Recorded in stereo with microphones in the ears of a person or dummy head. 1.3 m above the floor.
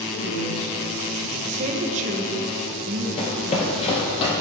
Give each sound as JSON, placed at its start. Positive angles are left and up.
{"t": 0.1, "sound": "a man speaking", "side_deg": 60, "distance_m": 2.5}
{"t": 1.4, "sound": "a woman speaking", "side_deg": -40, "distance_m": 1.1}
{"t": 3.2, "sound": "running footsteps", "side_deg": 35, "distance_m": 1.8}